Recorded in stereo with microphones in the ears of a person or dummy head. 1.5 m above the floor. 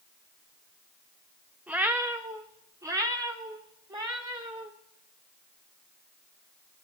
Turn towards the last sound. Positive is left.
turn(degrees=-25)  # may be behind; listen again after turning